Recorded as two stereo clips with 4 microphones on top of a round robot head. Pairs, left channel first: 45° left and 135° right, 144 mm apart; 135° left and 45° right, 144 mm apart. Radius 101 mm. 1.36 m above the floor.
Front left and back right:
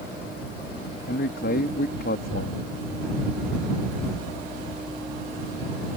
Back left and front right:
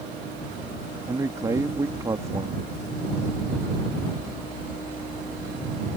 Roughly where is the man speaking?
Ahead left.